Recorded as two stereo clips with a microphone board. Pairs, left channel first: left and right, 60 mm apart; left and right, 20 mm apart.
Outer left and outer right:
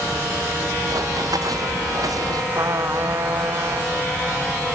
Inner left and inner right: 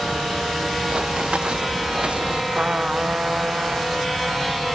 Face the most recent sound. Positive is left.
turn(degrees=-65)  # may be behind; listen again after turning